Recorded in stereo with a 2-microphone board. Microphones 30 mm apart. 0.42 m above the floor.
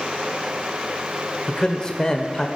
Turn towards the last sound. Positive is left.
turn(degrees=20)  # may be behind; listen again after turning